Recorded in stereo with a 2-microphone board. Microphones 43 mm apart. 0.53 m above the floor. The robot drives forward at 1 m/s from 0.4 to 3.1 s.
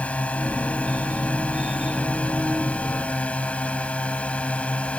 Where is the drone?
30° left (ahead or behind).